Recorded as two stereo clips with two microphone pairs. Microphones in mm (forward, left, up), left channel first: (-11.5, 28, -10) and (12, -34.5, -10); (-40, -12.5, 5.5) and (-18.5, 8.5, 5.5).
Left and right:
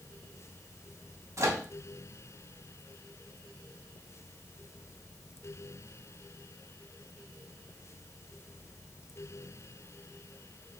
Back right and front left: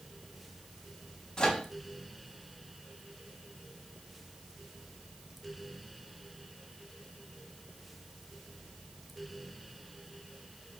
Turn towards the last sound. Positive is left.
turn(degrees=-80)